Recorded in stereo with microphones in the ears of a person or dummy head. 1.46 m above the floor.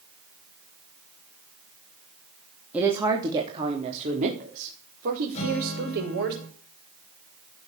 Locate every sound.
2.7 s a woman speaking: 10° right (ahead or behind), 3 m; by 6.3 s 65° right (ahead or behind), 7 m
5.3 s a guitar: 35° left (ahead or behind), 7 m